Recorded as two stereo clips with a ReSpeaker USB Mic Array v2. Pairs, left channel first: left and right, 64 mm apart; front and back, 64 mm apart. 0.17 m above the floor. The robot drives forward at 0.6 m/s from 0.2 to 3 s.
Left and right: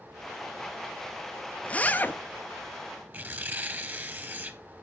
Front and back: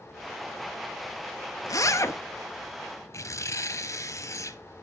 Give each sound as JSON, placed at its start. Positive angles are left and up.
{"t": 1.6, "sound": "a zipper", "azimuth_deg": 25, "distance_m": 0.8}
{"t": 3.1, "sound": "tearing paper", "azimuth_deg": -30, "distance_m": 0.8}